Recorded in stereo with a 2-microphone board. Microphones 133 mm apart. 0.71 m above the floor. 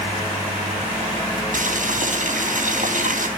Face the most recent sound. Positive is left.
turn(degrees=-70)  # may be behind; listen again after turning